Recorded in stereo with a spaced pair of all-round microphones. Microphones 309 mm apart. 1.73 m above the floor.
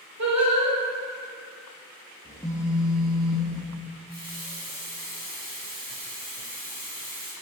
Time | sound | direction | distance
0.2 | singing | 60° right (ahead or behind) | 1.5 m
2.2 | a phone buzzing | 20° left (ahead or behind) | 1.3 m
4.1 | a running tap | 30° right (ahead or behind) | 2 m